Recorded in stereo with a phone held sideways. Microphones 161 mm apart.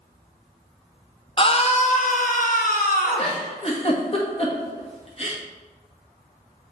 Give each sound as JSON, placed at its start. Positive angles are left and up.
{"t": 1.4, "sound": "a scream", "side_deg": 35, "distance_m": 0.7}
{"t": 3.2, "sound": "a giggle", "side_deg": 40, "distance_m": 1.5}